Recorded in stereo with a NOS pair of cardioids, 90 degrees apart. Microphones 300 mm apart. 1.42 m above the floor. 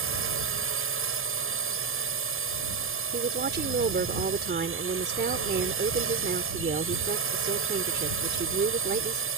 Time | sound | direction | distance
0.0 | a drone | 45° right | ?
3.1 | a woman speaking | 35° right | ?